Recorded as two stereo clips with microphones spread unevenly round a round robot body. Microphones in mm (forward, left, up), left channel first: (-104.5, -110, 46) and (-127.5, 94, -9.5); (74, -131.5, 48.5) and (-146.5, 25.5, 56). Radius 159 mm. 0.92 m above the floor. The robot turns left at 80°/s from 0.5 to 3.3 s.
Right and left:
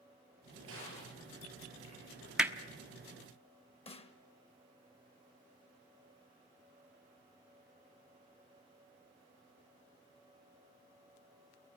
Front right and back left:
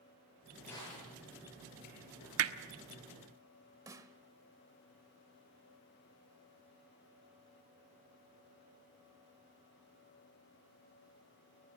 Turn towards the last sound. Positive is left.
turn(degrees=-140)